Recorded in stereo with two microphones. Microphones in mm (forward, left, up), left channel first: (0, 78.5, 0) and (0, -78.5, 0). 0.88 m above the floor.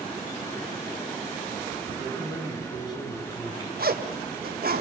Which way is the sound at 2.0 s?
25° left (ahead or behind).